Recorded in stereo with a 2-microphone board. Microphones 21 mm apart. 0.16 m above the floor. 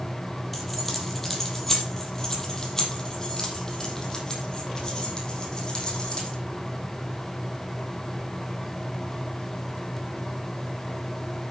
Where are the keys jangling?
10° left (ahead or behind), 3.5 m; by 6.4 s 40° left (ahead or behind), 5.5 m.